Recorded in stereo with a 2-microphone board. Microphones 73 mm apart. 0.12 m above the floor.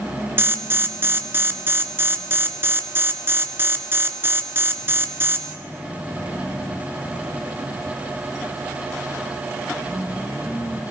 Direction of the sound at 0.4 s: 30° right (ahead or behind).